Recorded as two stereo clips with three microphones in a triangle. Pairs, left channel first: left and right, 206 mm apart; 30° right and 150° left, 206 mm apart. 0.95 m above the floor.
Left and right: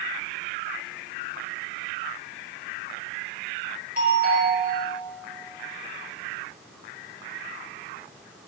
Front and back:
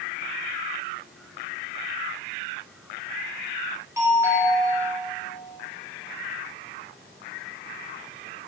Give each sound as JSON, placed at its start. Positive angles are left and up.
{"t": 4.0, "sound": "a doorbell", "azimuth_deg": -135, "distance_m": 5.0}